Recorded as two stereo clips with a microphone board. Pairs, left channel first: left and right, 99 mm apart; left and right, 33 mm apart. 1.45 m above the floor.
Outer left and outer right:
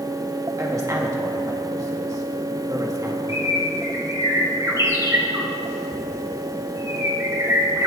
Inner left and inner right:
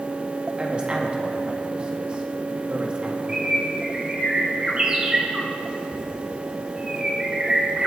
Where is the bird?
30° right (ahead or behind), 1.9 m.